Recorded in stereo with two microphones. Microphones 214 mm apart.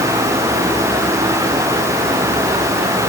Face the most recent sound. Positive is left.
No sound to turn to.